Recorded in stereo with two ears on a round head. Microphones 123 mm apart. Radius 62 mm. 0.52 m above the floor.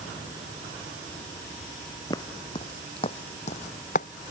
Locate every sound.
2.1 s footsteps: 25° left (ahead or behind); by 4.1 s 60° left (ahead or behind)